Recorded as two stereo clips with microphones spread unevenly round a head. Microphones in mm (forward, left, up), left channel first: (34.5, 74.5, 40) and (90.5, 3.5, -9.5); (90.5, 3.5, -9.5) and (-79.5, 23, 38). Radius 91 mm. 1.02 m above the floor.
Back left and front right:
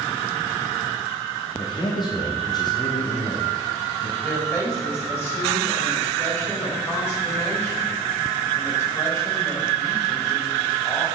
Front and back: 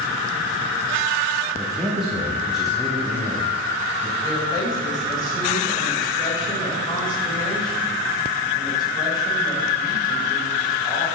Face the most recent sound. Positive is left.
turn(degrees=60)